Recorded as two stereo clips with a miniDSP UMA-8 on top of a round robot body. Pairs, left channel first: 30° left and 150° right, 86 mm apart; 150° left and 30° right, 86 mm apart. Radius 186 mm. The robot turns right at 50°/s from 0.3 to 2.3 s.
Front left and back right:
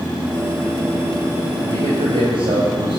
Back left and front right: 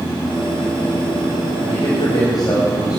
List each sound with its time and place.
1.6 s a man speaking: 160° left, 4.5 m; by 3.0 s 165° right, 4.5 m